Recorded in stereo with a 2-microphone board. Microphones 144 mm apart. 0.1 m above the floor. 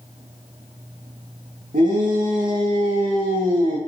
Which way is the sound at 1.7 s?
70° right (ahead or behind).